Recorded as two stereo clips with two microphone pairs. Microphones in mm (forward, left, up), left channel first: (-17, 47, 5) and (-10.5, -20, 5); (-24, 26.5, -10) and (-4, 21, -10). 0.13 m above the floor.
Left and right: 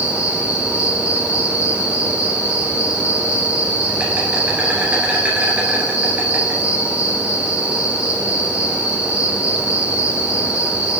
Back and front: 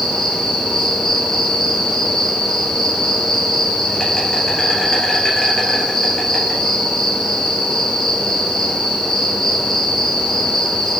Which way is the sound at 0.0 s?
140° right.